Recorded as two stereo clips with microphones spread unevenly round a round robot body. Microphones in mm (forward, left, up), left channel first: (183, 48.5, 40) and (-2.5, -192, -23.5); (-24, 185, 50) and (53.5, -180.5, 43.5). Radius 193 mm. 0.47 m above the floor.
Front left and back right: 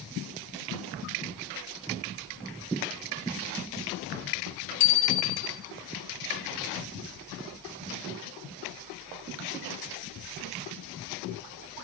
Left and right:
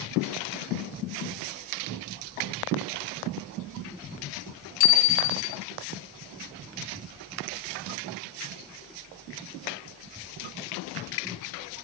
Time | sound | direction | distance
4.8 | a bicycle bell | 95° left | 2.5 m